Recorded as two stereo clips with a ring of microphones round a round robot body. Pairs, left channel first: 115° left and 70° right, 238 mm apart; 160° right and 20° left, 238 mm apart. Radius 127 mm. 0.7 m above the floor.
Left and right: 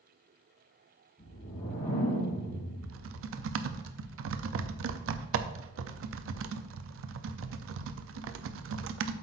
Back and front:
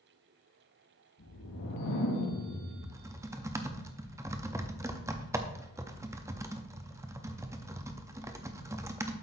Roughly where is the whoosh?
Behind.